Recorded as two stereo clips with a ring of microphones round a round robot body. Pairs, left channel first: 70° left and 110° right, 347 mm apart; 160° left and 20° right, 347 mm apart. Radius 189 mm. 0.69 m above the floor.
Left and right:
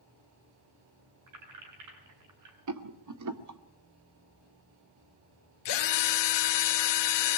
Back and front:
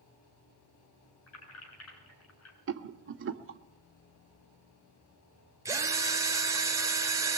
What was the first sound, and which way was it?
Keys jangling, 150° right.